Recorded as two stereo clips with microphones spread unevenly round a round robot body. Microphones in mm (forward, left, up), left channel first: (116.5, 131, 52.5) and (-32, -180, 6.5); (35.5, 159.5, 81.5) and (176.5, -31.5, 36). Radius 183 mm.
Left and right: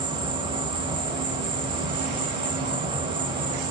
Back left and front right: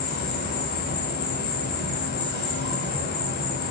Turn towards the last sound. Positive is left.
turn(degrees=180)